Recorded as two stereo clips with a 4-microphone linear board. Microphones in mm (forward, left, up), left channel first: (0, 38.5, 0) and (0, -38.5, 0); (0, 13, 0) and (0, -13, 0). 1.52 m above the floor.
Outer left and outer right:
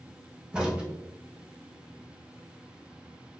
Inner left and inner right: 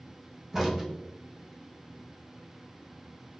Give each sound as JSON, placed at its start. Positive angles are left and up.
{"t": 0.5, "sound": "a crack", "side_deg": -10, "distance_m": 1.0}